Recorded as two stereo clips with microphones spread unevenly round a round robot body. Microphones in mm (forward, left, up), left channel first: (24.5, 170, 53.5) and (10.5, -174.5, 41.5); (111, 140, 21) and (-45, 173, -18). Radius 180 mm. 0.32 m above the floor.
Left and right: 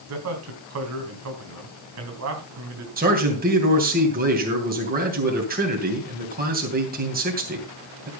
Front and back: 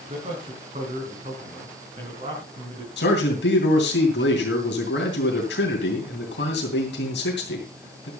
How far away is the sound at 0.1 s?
About 3.5 m.